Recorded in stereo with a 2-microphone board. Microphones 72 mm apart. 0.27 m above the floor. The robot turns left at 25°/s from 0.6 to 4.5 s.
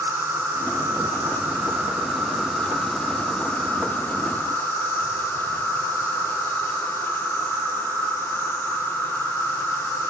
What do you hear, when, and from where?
0.0 s an insect: 125° right, 0.8 m; by 10.1 s 135° left, 0.8 m